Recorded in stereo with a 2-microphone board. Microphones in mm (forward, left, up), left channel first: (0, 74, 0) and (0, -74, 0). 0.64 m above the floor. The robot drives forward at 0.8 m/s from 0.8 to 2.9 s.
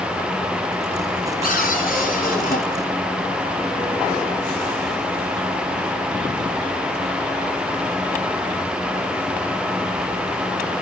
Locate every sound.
1.4 s a cupboard door: 75° left (ahead or behind), 8 m; by 2.6 s 70° left (ahead or behind), 8.5 m